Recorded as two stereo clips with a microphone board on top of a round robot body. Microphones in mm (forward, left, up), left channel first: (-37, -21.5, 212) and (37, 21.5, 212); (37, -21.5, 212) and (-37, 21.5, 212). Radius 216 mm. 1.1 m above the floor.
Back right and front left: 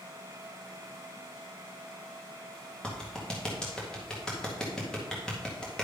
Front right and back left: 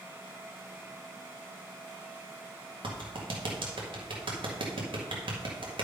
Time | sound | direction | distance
2.8 | a clap | 130° left | 2 m